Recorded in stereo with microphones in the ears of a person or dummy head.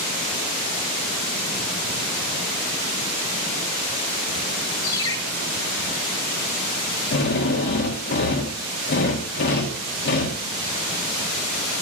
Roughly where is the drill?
Left.